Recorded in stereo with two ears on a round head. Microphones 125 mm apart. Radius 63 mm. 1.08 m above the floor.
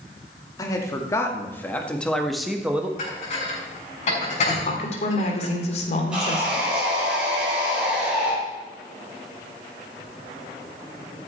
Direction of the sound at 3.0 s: 55° left (ahead or behind).